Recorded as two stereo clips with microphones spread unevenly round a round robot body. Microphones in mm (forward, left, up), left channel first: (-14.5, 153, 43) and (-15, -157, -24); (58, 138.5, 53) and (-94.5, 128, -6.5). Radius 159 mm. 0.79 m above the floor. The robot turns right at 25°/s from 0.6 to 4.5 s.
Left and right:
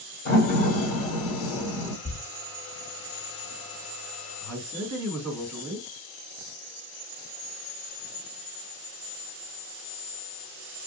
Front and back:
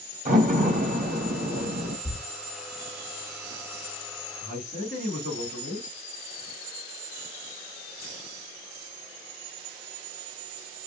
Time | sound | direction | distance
0.2 | a door slam | 155° left | 1.3 m
2.0 | a thud | 105° left | 0.5 m
4.4 | a man speaking | 75° right | 1.9 m